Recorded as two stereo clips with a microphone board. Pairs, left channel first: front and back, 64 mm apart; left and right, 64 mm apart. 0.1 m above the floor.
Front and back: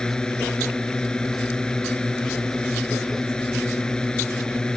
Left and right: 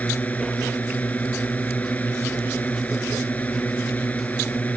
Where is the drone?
60° left.